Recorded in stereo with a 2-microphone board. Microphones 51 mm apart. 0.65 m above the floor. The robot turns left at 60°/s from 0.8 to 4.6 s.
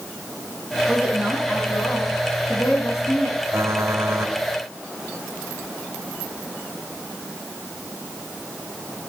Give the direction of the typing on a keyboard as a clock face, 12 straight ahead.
2 o'clock.